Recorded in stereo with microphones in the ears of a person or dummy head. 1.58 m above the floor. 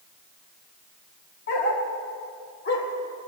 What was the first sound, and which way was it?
A dog barking, 50° left (ahead or behind).